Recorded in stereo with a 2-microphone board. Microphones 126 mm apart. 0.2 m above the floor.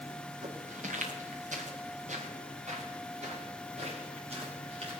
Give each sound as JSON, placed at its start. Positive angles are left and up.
{"t": 0.4, "sound": "footsteps", "side_deg": -80, "distance_m": 3.0}